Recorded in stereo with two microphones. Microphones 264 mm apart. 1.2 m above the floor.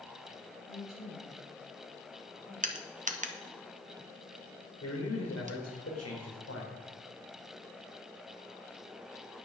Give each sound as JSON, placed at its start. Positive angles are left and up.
{"t": 0.7, "sound": "a woman speaking", "side_deg": 15, "distance_m": 7.5}
{"t": 2.6, "sound": "crushing", "side_deg": -30, "distance_m": 1.1}
{"t": 4.8, "sound": "a man speaking", "side_deg": 65, "distance_m": 4.0}